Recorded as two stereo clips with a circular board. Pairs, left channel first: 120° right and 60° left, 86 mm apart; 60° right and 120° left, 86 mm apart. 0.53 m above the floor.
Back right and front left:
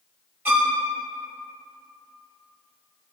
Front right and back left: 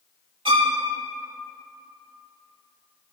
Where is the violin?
125° left, 0.7 m.